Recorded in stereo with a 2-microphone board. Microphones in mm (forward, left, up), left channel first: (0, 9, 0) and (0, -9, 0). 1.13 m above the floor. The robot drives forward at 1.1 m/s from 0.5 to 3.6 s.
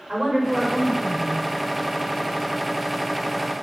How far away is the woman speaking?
About 4.5 m.